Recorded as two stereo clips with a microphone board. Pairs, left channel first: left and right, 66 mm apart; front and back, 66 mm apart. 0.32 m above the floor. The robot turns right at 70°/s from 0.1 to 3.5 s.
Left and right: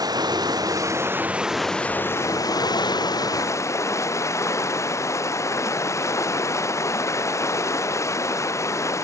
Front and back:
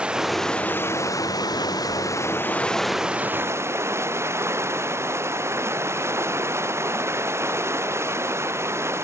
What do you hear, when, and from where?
0.0 s running water: 105° right; by 9.0 s 135° left